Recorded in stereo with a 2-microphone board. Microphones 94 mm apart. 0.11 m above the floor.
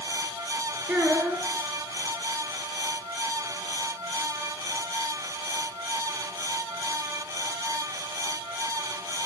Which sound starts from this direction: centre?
A child speaking, at 0.9 s.